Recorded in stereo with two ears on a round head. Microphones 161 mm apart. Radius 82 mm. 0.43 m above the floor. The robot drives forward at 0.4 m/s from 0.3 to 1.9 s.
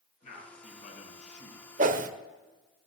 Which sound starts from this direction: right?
A whoosh, at 1.8 s.